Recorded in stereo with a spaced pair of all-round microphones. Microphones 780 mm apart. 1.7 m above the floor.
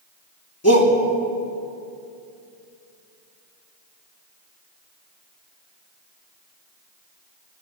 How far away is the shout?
About 3 m.